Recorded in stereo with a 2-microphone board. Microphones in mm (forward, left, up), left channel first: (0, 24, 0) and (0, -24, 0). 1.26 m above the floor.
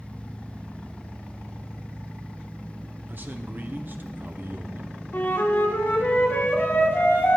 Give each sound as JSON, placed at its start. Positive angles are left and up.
{"t": 3.1, "sound": "a man speaking", "side_deg": -45, "distance_m": 0.7}
{"t": 5.1, "sound": "a flute", "side_deg": 55, "distance_m": 1.2}